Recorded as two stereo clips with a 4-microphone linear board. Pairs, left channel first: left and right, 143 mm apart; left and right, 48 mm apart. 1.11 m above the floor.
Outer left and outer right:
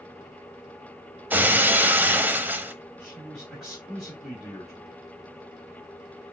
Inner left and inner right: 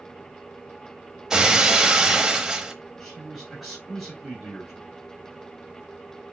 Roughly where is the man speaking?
Centre.